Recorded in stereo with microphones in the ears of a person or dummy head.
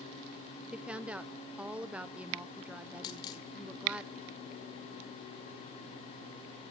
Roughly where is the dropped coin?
Left.